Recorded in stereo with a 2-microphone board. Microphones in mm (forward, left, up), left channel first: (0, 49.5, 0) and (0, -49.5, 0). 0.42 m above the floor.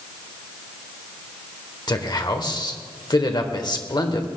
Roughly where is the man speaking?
Left.